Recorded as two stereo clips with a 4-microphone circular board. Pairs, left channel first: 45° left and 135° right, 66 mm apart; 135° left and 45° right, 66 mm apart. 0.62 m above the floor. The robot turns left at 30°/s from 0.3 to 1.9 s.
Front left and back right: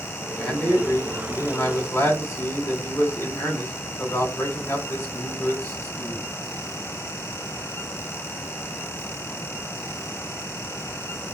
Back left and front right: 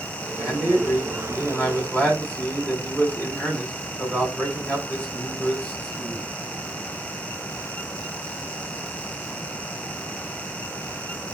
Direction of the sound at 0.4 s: 120° left.